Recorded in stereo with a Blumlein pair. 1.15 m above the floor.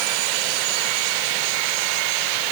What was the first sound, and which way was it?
Only background noise.